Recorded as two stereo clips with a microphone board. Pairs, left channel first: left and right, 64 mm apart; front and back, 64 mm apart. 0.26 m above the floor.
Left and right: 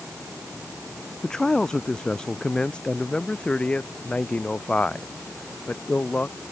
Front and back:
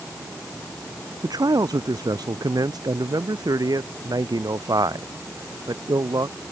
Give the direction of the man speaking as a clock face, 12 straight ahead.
6 o'clock.